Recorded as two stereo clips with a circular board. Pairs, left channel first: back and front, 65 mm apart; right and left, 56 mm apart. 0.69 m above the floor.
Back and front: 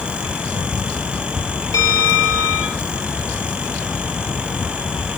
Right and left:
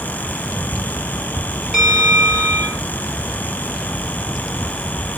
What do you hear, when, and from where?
1.7 s a bell: 165° left, 4 m